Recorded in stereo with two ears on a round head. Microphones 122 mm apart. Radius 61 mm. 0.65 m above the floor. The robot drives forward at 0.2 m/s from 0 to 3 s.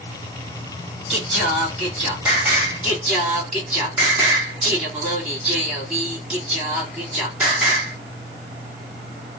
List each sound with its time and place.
1.1 s singing: 10° right (ahead or behind), 1.8 m